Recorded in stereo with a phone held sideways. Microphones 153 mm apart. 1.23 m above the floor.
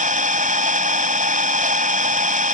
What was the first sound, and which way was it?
An engine running, 60° right (ahead or behind).